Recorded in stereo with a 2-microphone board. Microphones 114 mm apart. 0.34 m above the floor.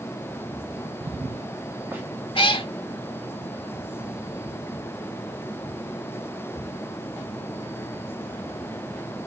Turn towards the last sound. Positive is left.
turn(degrees=50)  # may be behind; listen again after turning